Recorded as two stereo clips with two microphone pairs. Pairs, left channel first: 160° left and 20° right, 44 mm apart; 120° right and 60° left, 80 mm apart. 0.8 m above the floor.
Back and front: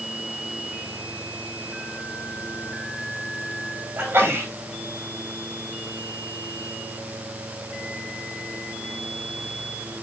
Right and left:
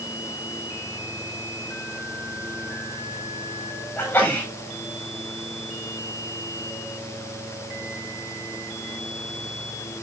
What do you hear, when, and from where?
4.0 s a sneeze: 60° right, 6.5 m